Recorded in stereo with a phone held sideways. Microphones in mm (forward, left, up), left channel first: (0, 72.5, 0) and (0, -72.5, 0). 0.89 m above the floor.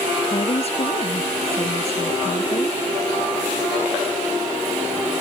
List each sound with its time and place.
0.3 s a woman speaking: 45° left (ahead or behind)